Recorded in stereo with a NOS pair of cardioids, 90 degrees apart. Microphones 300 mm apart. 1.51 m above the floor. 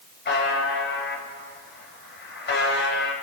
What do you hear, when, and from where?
0.2 s a buzzer: 35° left, 3.5 m